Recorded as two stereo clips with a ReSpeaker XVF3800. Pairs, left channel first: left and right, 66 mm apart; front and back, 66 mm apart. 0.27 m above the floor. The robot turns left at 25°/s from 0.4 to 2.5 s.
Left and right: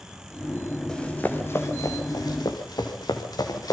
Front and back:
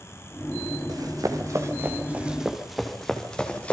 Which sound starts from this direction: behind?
Running footsteps, at 0.9 s.